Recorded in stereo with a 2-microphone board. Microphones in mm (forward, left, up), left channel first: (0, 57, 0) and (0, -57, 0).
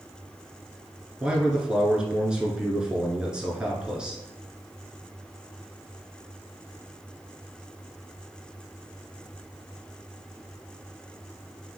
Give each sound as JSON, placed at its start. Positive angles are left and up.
{"t": 1.2, "sound": "a man speaking", "side_deg": -10, "distance_m": 1.1}